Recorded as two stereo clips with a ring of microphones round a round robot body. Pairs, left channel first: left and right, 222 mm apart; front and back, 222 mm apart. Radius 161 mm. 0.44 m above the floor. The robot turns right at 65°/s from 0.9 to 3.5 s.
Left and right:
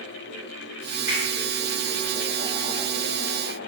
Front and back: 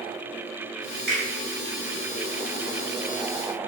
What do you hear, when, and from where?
1.1 s a finger snap: 165° right, 1.5 m; by 1.2 s 155° right, 1.5 m